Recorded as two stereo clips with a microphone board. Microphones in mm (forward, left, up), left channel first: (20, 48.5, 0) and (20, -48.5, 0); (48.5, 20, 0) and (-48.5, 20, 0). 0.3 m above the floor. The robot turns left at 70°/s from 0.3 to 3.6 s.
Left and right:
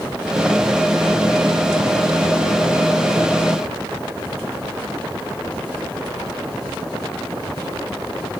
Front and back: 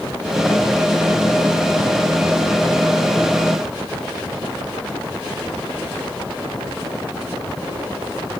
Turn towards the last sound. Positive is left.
No sound to turn to.